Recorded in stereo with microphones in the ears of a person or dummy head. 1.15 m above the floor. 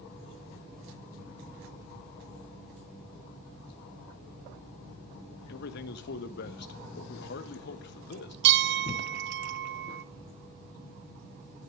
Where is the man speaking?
60° left (ahead or behind), 1.6 m.